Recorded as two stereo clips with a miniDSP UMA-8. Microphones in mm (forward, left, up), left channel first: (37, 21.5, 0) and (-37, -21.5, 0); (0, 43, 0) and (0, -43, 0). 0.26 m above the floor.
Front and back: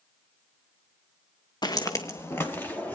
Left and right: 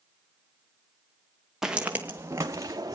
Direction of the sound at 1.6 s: 5° right.